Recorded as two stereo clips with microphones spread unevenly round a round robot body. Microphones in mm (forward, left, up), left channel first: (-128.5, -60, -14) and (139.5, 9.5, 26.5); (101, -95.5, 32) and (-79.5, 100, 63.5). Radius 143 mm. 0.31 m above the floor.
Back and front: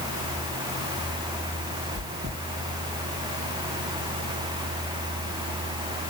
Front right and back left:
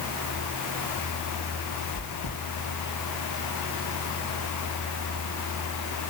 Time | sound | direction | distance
1.9 | chewing | 60° right | 4.5 m